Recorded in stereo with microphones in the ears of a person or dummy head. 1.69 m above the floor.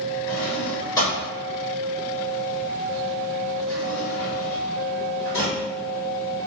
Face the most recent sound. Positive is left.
turn(degrees=20)  # may be behind; listen again after turning